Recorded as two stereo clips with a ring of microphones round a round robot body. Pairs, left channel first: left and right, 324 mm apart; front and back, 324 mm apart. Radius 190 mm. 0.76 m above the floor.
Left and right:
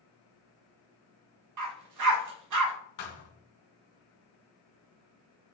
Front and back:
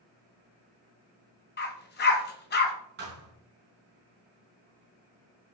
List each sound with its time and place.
1.6 s a dog barking: 60° right, 2.0 m
3.0 s a thud: 115° left, 3 m